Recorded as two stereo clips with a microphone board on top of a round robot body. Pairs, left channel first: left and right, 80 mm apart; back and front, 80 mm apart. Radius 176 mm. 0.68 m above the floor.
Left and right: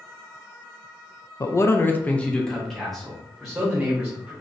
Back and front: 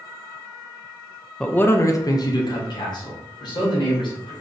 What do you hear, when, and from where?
1.4 s a man speaking: 105° left, 0.6 m; by 4.3 s 175° right, 1.7 m